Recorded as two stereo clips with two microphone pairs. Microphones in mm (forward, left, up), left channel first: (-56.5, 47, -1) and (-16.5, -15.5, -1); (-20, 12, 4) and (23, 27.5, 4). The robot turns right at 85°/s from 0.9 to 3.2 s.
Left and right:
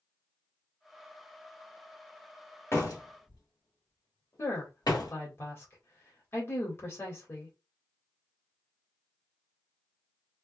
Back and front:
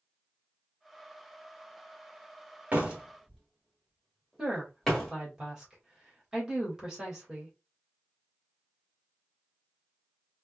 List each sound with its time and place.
2.7 s a door slam: 70° left, 1.3 m; by 5.1 s 115° left, 1.3 m
4.4 s a woman speaking: 85° left, 1.6 m